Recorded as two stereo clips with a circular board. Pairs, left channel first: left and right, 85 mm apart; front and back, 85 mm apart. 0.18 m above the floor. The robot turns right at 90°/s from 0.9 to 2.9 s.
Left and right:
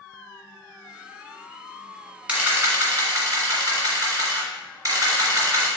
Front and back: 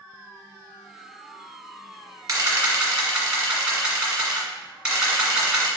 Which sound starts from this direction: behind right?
A camera shutter, at 2.3 s.